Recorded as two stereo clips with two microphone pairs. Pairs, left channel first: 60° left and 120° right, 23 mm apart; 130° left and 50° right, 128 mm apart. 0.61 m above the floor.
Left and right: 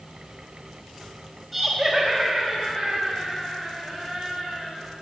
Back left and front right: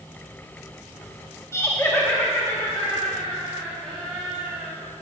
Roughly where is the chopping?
I don't hear chopping.